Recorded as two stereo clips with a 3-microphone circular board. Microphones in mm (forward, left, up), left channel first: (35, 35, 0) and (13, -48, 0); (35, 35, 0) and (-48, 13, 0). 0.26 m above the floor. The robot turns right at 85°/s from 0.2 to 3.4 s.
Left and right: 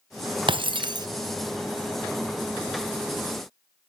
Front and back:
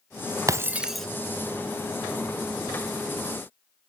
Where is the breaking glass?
115° right, 0.9 m; by 1.1 s 65° right, 0.9 m.